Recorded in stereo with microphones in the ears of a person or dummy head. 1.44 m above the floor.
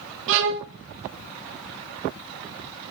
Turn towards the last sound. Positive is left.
turn(degrees=-65)  # may be behind; listen again after turning